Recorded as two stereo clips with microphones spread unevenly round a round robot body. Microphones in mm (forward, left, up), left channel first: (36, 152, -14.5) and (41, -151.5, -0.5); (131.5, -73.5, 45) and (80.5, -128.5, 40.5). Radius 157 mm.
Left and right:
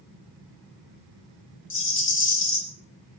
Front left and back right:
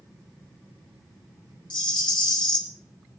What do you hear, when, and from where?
1.7 s a rattle: 40° left, 1.9 m